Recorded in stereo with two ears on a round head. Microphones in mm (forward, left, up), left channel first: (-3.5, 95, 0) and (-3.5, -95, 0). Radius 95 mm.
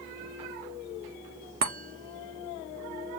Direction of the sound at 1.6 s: 45° right (ahead or behind).